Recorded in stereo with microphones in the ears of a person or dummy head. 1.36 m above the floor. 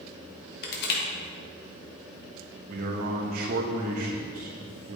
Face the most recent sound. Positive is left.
turn(degrees=-45)  # may be behind; listen again after turning